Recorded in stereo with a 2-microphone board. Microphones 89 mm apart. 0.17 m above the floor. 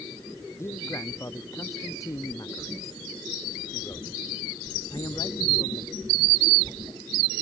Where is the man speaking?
30° left (ahead or behind); by 6.0 s 50° left (ahead or behind).